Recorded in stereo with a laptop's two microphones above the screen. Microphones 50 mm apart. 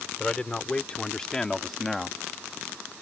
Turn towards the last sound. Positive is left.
turn(degrees=-5)  # may be behind; listen again after turning